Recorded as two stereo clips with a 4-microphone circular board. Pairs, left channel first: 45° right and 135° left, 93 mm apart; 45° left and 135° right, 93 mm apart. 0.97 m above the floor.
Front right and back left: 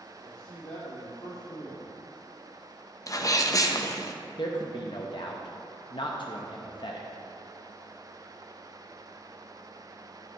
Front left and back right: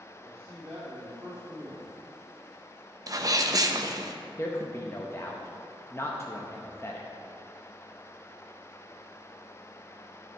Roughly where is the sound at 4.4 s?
Ahead.